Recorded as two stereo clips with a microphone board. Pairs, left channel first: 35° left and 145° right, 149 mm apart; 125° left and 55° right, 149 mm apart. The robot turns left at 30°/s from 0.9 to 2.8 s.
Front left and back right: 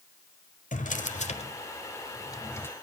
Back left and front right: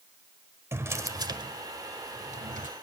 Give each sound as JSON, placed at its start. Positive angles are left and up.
{"t": 0.7, "sound": "a drawer", "azimuth_deg": 15, "distance_m": 1.2}